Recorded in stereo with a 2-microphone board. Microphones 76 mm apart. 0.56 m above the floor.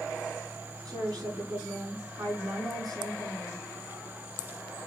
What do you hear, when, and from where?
0.8 s a woman speaking: 60° right (ahead or behind), 5 m